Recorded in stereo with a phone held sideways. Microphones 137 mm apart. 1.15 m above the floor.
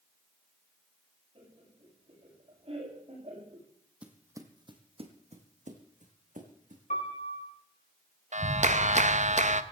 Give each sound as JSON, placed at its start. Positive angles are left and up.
{"t": 1.4, "sound": "laughter", "side_deg": -45, "distance_m": 9.0}
{"t": 4.0, "sound": "footsteps", "side_deg": -10, "distance_m": 1.8}
{"t": 6.9, "sound": "a piano", "side_deg": 60, "distance_m": 4.0}
{"t": 8.3, "sound": "a clap", "side_deg": -60, "distance_m": 0.9}